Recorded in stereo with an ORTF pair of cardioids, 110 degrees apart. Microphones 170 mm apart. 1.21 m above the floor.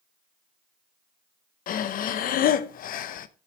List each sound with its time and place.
1.7 s breathing: 55° left, 0.7 m